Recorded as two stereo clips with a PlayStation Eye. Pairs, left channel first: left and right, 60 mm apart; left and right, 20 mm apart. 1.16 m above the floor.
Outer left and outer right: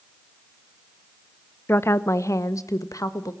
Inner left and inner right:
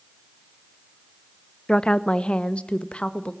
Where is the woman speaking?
40° left (ahead or behind), 0.9 m; by 3.3 s 80° left, 1.7 m.